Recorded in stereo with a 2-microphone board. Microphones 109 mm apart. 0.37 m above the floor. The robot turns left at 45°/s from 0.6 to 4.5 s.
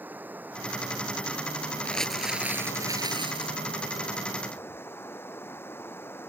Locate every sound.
0.0 s running water: 165° right; by 6.3 s 20° left
1.9 s crumpling: 15° left; by 3.6 s 65° right